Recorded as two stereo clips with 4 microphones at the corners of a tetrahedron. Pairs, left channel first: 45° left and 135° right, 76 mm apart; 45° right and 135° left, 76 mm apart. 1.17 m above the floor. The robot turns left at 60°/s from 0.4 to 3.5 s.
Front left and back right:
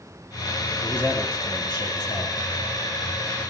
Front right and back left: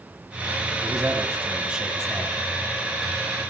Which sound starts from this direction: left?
A man speaking, at 0.8 s.